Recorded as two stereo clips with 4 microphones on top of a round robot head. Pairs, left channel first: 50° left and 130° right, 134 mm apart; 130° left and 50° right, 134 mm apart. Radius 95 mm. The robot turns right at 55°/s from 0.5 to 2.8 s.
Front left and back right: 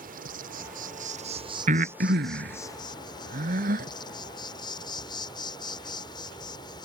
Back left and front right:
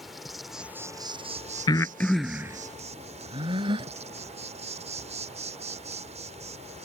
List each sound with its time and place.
0.0 s an insect: 135° right; by 6.8 s 10° right
1.7 s breathing: 165° right; by 3.9 s 105° right